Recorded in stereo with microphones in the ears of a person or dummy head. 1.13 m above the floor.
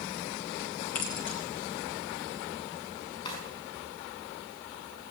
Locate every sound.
0.9 s keys jangling: 40° left (ahead or behind), 2 m
3.2 s a drawer: 30° left (ahead or behind), 5 m